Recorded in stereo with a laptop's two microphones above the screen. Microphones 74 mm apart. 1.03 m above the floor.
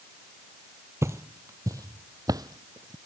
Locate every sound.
1.0 s footsteps: 40° right (ahead or behind); by 3.0 s 60° right (ahead or behind)